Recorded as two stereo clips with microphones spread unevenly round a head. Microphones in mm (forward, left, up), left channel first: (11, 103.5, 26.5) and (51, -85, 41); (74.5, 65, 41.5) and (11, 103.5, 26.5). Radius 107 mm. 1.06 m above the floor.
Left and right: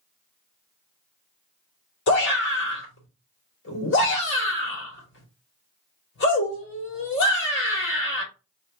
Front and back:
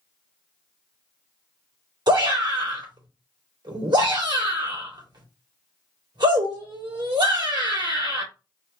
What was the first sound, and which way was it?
A shout, 135° left.